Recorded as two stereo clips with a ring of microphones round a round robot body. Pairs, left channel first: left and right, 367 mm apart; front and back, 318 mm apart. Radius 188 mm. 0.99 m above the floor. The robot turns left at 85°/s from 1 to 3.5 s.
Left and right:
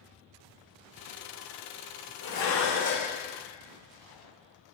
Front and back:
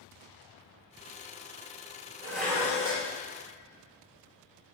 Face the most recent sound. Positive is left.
turn(degrees=25)